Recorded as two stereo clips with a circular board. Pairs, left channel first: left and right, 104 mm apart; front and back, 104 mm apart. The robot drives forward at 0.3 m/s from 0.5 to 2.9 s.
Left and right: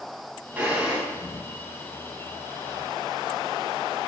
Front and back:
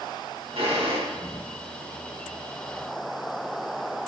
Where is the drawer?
165° right, 3 m.